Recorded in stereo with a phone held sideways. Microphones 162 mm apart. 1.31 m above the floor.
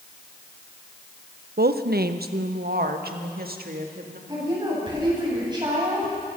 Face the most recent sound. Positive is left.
turn(degrees=-30)  # may be behind; listen again after turning